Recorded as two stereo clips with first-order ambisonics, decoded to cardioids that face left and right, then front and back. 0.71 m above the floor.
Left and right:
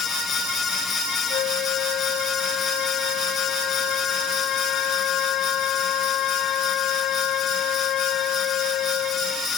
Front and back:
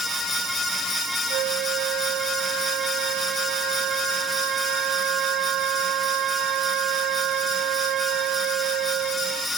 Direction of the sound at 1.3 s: 135° left.